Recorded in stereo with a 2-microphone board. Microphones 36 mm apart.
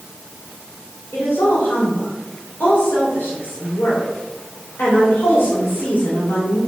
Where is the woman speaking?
75° left (ahead or behind), 3 m.